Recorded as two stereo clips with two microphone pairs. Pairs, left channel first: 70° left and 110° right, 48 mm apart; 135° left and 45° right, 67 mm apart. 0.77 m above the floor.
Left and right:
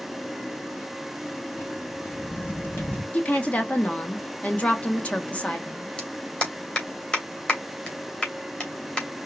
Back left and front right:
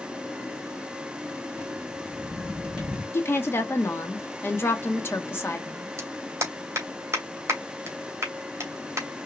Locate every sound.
1.5 s footsteps: 30° left, 3.5 m
3.1 s a woman speaking: 105° left, 1.3 m
6.0 s a clap: straight ahead, 2.5 m